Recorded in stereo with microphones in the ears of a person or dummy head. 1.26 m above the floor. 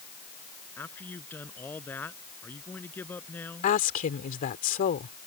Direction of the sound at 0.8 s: 10° left (ahead or behind).